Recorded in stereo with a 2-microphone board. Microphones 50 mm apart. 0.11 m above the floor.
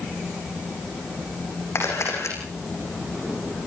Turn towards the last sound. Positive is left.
turn(degrees=70)  # may be behind; listen again after turning